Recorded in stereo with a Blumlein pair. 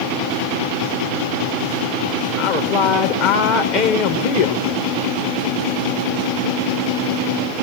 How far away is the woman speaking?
About 1.2 m.